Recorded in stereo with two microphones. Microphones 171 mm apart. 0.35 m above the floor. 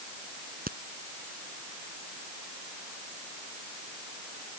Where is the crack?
60° right (ahead or behind).